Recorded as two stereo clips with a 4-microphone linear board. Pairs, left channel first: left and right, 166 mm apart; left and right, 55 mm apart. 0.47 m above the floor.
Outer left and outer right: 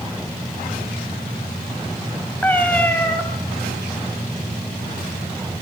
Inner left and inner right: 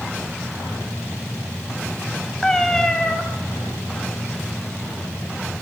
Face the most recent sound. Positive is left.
turn(degrees=10)  # may be behind; listen again after turning